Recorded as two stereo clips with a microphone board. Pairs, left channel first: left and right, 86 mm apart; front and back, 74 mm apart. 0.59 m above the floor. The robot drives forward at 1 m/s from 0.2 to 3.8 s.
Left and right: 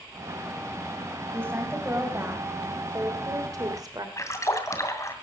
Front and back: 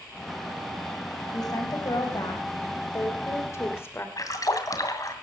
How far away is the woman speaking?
About 4.5 m.